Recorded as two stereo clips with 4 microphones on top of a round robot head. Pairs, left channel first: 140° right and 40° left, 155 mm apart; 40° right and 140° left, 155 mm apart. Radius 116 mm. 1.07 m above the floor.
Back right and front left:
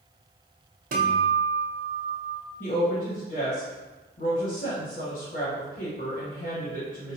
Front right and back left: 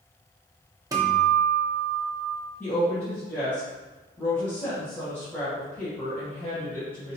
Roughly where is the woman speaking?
Behind right.